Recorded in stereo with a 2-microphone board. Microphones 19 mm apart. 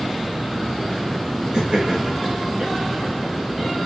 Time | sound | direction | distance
1.5 | laughter | 50° right (ahead or behind) | 2.5 m